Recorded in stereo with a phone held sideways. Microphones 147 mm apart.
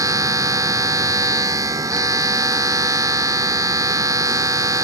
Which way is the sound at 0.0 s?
25° right (ahead or behind).